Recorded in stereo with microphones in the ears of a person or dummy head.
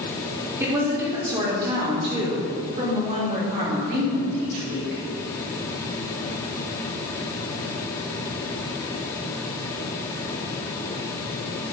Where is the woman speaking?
25° right (ahead or behind), 3.5 m; by 5.0 s 60° right (ahead or behind), 5.5 m.